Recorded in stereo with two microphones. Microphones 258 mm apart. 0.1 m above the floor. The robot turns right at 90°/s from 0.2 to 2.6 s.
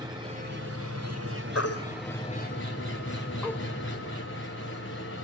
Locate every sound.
0.0 s an engine running: 165° right, 4 m; by 5.2 s 50° left, 4 m
1.6 s a baby crying: 70° left (ahead or behind), 1.9 m; by 3.6 s 10° left (ahead or behind), 1.9 m